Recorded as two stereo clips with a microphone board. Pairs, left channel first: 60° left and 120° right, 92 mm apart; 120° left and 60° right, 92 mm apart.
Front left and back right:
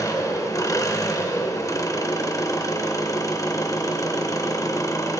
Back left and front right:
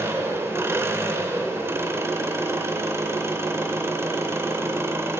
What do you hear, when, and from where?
0.0 s an engine running: 5° left, 0.8 m